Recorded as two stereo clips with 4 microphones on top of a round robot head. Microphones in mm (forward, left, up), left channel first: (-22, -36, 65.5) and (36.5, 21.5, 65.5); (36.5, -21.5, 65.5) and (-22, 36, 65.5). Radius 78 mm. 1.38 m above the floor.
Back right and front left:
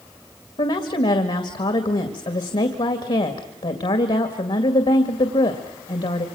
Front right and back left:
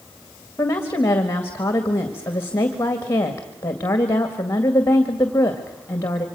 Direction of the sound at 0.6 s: 110° right.